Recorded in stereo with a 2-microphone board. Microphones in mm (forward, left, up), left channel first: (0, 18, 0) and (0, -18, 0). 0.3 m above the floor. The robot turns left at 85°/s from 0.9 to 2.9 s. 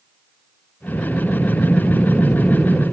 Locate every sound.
0.9 s breathing: 140° left, 2.0 m; by 2.8 s 25° right, 2.0 m